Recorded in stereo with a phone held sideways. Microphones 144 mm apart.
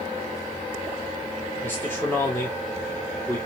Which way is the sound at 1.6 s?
15° left (ahead or behind).